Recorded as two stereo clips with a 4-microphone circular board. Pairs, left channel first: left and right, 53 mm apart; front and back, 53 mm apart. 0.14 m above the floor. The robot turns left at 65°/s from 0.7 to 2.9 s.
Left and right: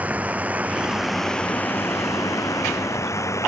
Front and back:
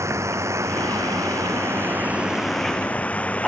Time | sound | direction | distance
0.0 | a drone | 150° right | ?